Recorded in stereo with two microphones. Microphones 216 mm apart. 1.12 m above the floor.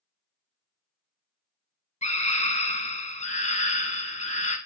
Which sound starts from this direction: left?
A scream, at 2.0 s.